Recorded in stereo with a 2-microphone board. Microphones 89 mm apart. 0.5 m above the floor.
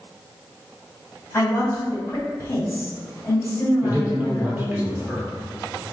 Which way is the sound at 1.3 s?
20° left (ahead or behind).